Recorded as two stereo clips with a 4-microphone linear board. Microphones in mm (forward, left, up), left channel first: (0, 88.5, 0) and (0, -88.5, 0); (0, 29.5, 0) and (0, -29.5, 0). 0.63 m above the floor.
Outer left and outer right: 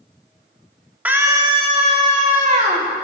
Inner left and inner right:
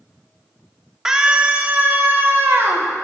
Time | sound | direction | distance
1.1 | a scream | 10° right (ahead or behind) | 1.6 m